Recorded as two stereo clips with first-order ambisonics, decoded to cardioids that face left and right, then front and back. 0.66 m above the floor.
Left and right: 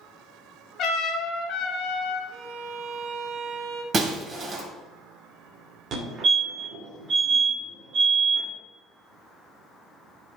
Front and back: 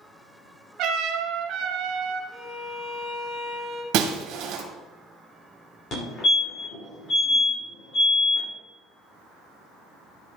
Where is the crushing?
No crushing in this recording.